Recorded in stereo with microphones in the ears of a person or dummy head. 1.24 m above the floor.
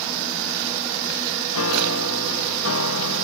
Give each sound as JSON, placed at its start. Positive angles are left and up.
{"t": 1.5, "sound": "a piano", "side_deg": 80, "distance_m": 1.5}